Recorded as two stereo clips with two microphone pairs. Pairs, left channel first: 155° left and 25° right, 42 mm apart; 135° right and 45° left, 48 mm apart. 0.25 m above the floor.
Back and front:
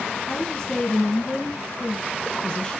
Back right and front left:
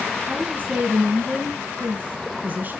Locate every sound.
0.3 s a woman speaking: 85° left, 2.0 m